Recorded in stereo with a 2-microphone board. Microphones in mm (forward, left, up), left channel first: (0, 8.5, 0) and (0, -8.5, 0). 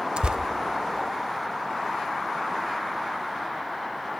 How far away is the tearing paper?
About 0.5 m.